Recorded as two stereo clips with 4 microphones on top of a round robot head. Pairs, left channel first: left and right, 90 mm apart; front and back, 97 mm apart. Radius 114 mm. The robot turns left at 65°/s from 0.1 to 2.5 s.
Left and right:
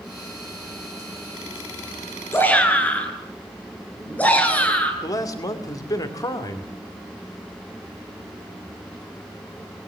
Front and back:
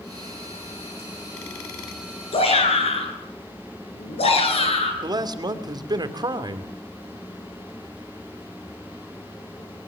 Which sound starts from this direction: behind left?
A man speaking, at 5.0 s.